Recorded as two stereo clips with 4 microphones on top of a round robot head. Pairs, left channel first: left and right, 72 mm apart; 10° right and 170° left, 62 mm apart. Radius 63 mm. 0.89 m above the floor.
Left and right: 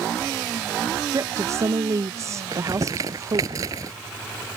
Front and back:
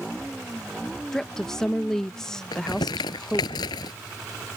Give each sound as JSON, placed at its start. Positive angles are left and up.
{"t": 1.1, "sound": "a woman speaking", "azimuth_deg": -90}
{"t": 2.5, "sound": "crumpling", "azimuth_deg": -40}